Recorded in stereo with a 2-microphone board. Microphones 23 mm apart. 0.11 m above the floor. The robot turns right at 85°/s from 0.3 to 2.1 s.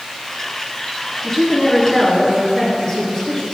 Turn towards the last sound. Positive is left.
turn(degrees=120)